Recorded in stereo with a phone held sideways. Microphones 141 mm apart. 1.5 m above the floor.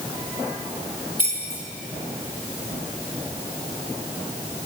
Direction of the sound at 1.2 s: 65° left (ahead or behind).